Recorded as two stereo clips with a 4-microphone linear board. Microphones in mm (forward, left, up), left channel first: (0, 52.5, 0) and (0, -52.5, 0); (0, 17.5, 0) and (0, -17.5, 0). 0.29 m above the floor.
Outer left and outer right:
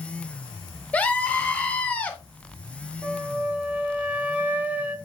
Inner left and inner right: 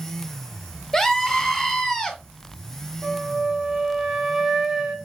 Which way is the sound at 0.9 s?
10° left (ahead or behind).